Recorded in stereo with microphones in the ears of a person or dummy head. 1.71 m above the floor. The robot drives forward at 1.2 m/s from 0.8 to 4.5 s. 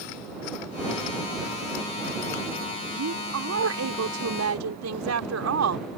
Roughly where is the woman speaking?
Right.